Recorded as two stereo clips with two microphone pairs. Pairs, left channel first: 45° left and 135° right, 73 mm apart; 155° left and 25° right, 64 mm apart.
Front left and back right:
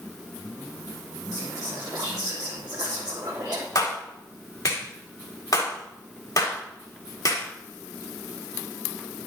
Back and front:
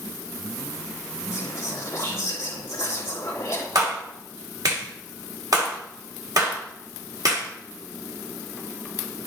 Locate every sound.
1.3 s whispering: 160° right, 3 m
3.8 s a clap: 5° left, 3.5 m